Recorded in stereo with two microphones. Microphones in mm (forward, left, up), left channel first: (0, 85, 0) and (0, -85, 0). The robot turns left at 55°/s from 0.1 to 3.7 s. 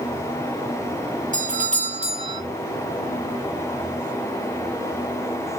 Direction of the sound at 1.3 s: 85° right.